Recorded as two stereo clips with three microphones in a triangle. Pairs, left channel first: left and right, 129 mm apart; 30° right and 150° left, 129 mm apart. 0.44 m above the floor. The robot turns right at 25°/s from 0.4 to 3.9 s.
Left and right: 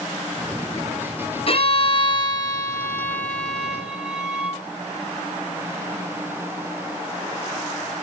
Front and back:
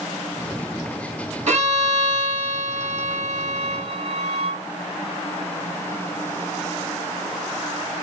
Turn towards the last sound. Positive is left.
turn(degrees=-170)